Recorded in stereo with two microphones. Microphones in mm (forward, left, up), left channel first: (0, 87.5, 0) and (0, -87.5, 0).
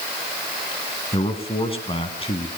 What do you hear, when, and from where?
1.1 s a man speaking: 30° left (ahead or behind), 1.8 m